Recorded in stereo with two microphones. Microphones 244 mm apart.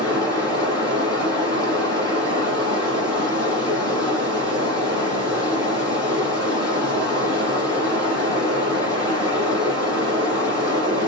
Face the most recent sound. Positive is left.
turn(degrees=15)  # may be behind; listen again after turning